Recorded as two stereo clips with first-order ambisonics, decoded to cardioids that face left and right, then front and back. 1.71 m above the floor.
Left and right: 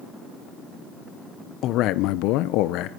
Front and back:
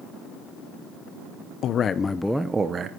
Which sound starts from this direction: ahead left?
A man speaking, at 1.6 s.